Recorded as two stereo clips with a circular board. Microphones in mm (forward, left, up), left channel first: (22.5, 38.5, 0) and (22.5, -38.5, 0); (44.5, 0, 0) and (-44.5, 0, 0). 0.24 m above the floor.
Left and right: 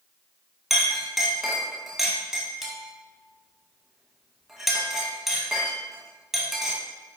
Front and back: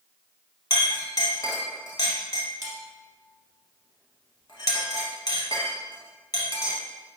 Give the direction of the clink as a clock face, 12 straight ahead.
12 o'clock.